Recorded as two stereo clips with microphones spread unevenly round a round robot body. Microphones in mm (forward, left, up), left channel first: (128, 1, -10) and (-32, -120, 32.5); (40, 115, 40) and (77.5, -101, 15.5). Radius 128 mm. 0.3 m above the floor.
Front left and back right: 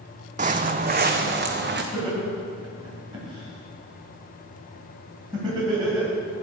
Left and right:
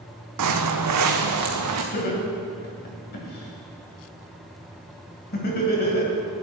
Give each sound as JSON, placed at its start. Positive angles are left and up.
{"t": 0.4, "sound": "footsteps", "azimuth_deg": -95, "distance_m": 0.9}
{"t": 1.9, "sound": "laughter", "azimuth_deg": 140, "distance_m": 2.5}